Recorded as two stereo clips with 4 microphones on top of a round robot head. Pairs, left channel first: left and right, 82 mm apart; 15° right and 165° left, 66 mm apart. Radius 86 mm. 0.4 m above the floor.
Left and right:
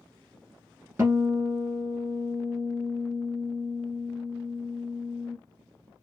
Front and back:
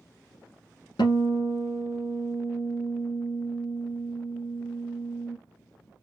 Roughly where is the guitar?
Ahead right.